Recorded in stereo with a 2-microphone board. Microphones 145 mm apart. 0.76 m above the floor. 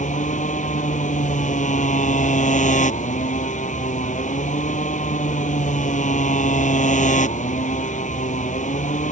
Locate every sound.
0.0 s a motorcycle: 60° left (ahead or behind)